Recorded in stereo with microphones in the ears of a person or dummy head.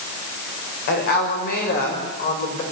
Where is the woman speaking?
60° left (ahead or behind), 6 m; by 2.6 s 45° left (ahead or behind), 6 m.